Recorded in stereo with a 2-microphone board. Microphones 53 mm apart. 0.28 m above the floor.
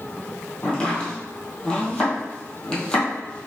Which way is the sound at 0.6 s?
20° left (ahead or behind).